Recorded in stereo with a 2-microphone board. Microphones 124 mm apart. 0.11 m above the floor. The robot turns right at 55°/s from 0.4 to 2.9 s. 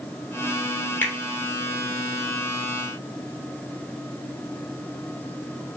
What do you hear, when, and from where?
1.0 s a finger snap: 15° left (ahead or behind), 0.9 m